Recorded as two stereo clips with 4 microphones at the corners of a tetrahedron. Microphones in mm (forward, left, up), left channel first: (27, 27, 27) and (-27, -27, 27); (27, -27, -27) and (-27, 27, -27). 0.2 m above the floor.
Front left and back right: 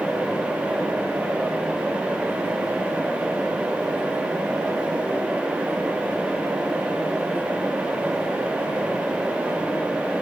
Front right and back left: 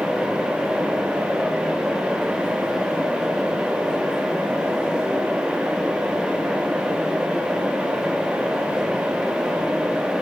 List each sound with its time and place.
Only background noise.